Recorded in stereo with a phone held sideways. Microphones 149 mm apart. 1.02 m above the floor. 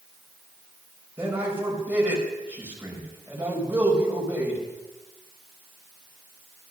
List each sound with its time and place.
1.2 s a man speaking: 10° right (ahead or behind), 5 m